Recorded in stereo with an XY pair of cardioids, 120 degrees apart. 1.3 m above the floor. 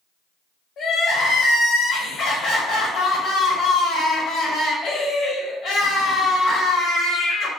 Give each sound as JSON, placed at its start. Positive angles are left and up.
{"t": 0.8, "sound": "crying", "azimuth_deg": 60, "distance_m": 1.1}